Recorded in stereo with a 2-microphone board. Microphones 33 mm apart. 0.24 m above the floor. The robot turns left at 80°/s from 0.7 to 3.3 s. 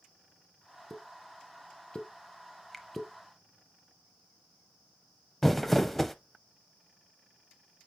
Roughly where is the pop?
Centre.